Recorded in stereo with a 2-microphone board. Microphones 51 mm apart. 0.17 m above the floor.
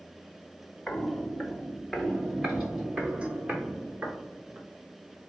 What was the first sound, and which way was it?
Footsteps, 20° left (ahead or behind).